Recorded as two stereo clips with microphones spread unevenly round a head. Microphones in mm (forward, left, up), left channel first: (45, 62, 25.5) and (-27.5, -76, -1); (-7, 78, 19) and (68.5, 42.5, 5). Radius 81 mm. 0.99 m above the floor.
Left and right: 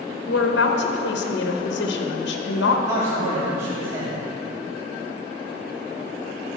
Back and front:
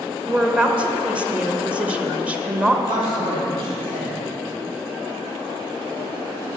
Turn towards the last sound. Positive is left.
turn(degrees=-45)